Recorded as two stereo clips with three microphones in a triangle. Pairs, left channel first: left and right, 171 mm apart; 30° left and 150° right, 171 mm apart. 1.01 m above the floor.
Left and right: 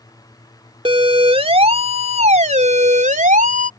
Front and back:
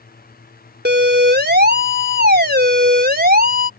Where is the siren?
150° right; by 3.7 s 125° right.